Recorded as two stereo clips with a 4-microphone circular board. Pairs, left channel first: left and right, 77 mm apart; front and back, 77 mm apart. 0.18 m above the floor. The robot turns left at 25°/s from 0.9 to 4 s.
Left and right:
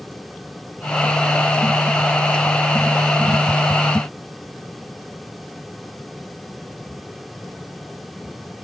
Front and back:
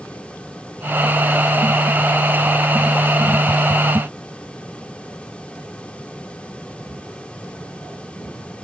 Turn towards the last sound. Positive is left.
No sound to turn to.